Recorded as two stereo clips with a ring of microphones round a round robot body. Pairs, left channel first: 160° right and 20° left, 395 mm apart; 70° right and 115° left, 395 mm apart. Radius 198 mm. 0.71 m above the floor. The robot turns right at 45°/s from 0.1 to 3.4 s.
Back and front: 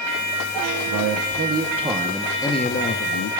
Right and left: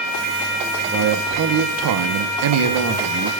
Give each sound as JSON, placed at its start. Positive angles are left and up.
{"t": 0.9, "sound": "a man speaking", "azimuth_deg": 55, "distance_m": 0.7}